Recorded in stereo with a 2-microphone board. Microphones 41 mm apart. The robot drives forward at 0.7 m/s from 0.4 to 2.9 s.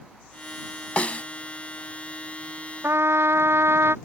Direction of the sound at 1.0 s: 30° left (ahead or behind).